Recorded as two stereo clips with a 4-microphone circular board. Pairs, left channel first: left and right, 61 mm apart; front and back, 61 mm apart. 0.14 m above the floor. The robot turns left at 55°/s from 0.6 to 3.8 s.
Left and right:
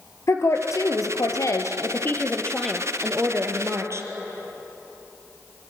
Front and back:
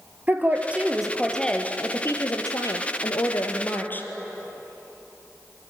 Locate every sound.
0.3 s a woman speaking: 120° left, 2.5 m; by 4.1 s 55° right, 2.5 m